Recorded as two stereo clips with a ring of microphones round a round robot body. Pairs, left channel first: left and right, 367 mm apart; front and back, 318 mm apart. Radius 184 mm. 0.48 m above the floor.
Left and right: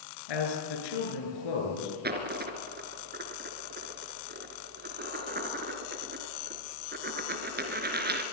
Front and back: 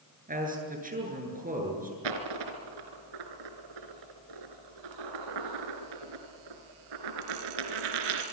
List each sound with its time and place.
0.3 s a man speaking: 115° left, 8.5 m
2.0 s a dropped coin: 155° right, 2.5 m